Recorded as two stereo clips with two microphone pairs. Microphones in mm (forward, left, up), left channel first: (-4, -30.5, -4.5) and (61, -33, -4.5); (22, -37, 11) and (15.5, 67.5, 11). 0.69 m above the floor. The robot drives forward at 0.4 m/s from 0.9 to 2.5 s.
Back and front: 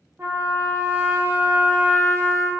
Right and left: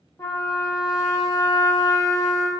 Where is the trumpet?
50° right, 0.7 m; by 2.5 s 125° right, 0.7 m.